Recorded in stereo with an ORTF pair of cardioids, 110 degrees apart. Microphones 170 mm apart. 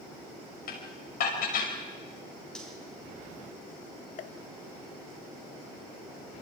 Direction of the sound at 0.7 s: 60° left.